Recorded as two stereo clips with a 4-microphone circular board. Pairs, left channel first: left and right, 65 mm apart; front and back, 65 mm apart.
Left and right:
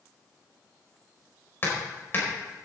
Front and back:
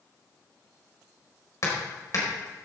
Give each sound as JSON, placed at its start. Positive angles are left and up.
{"t": 1.6, "sound": "hammering", "azimuth_deg": 35, "distance_m": 4.5}